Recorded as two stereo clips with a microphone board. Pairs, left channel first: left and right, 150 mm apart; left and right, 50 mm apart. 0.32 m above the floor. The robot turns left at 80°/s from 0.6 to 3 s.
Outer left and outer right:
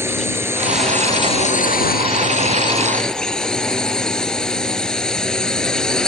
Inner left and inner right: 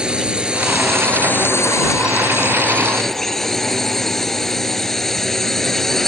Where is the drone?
165° right; by 6.1 s 5° left.